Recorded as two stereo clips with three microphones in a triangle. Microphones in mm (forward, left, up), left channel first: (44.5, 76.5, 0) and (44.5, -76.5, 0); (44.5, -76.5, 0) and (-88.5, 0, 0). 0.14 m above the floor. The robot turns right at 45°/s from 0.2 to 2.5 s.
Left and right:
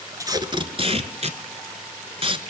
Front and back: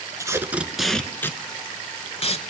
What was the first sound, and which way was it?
Tape being pulled, 150° right.